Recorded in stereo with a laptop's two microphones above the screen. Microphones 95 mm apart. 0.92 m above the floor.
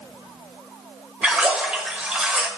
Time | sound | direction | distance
1.2 | a splash | 10° right (ahead or behind) | 1.5 m